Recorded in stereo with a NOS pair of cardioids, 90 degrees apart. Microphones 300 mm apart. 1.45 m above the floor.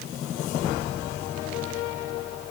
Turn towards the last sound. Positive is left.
No sound to turn to.